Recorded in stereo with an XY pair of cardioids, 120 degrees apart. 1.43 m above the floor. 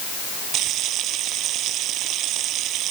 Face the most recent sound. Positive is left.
turn(degrees=-70)